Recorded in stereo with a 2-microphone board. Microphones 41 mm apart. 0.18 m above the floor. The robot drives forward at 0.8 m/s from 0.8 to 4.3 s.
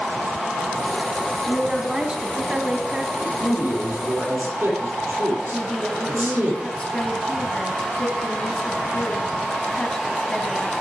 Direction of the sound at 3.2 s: 75° right (ahead or behind).